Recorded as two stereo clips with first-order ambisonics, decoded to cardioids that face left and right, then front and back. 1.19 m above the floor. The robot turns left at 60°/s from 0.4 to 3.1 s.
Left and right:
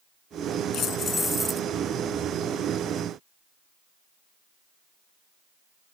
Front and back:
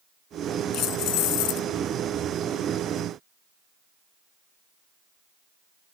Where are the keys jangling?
40° left; by 1.7 s 15° right.